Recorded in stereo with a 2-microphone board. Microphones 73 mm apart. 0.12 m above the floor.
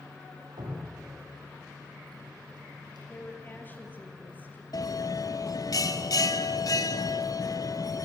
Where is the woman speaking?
25° left (ahead or behind), 3.5 m.